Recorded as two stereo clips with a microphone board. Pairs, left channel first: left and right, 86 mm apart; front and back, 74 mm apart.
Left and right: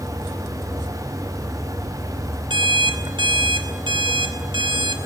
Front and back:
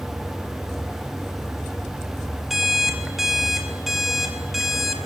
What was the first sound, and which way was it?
An alarm clock, 95° right.